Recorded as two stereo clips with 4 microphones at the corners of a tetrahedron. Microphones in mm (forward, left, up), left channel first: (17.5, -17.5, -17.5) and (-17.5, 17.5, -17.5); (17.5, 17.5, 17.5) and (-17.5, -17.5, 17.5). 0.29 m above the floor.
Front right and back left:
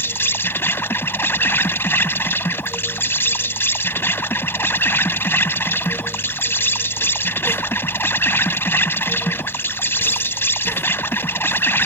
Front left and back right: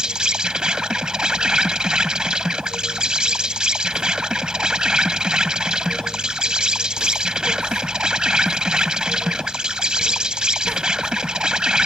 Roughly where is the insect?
Ahead right.